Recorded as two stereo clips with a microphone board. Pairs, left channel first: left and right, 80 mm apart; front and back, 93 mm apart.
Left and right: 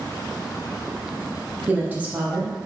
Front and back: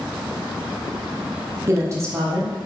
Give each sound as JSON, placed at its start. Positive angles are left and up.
{"t": 1.7, "sound": "a woman speaking", "azimuth_deg": -145, "distance_m": 0.9}